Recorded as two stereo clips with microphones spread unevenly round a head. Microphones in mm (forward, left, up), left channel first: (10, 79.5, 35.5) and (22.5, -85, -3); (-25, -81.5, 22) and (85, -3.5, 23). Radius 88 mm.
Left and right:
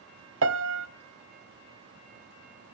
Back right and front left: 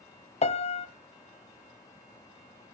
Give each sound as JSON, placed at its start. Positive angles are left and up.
{"t": 0.4, "sound": "a piano", "azimuth_deg": -105, "distance_m": 0.9}